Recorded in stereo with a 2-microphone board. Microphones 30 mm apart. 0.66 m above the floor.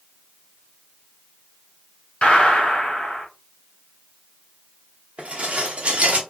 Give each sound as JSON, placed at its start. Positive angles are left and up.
{"t": 2.2, "sound": "a gunshot", "side_deg": 45, "distance_m": 1.3}
{"t": 5.2, "sound": "dishes clattering", "side_deg": -45, "distance_m": 0.7}